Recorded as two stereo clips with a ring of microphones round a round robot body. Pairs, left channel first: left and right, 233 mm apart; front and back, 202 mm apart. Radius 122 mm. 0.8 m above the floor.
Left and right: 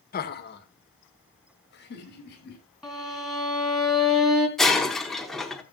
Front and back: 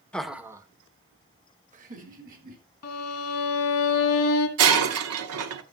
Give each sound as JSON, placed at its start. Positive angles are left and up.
{"t": 0.1, "sound": "laughter", "azimuth_deg": 80, "distance_m": 1.0}
{"t": 2.8, "sound": "a violin", "azimuth_deg": 0, "distance_m": 1.5}
{"t": 4.6, "sound": "breaking glass", "azimuth_deg": 180, "distance_m": 0.9}